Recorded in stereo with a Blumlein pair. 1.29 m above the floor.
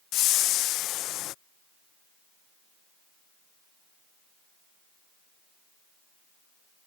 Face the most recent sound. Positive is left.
turn(degrees=35)